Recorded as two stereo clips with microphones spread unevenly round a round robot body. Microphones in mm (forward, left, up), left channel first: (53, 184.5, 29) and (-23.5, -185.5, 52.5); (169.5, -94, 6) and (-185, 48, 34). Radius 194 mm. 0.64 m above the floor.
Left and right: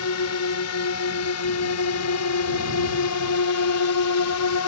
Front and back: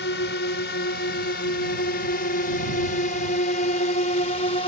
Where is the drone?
35° left; by 4.7 s 50° left.